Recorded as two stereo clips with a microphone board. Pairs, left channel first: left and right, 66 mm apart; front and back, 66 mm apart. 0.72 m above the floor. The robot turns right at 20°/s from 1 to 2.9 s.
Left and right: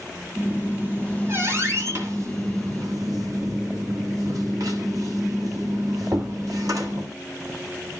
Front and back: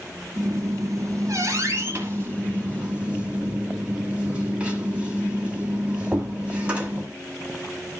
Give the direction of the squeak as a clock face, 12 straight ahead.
5 o'clock.